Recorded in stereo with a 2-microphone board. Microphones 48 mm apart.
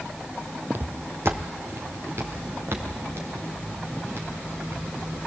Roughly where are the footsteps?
Right.